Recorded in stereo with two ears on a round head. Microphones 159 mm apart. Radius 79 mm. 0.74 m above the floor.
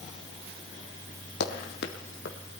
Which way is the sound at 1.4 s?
60° left (ahead or behind).